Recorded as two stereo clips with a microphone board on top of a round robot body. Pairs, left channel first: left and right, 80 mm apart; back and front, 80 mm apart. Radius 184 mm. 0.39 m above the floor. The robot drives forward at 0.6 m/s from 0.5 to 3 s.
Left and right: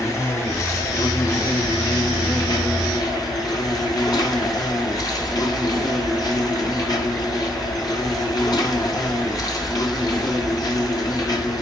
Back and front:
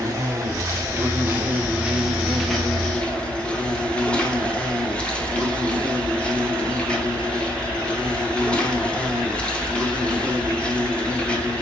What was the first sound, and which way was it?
An insect, 45° left.